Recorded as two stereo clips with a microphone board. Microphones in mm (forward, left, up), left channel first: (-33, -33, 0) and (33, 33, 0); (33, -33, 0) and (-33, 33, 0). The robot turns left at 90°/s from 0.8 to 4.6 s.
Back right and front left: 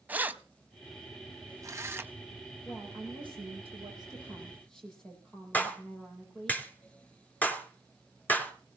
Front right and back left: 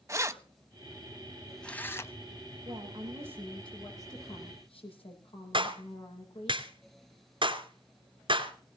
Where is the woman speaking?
125° left, 7.5 m; by 6.5 s 50° right, 7.5 m.